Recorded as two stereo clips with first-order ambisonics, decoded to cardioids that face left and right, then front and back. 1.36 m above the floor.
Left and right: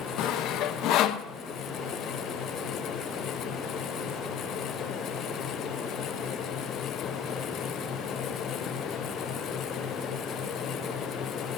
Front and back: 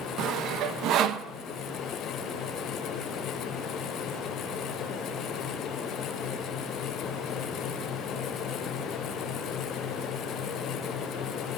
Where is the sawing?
135° left, 0.6 m.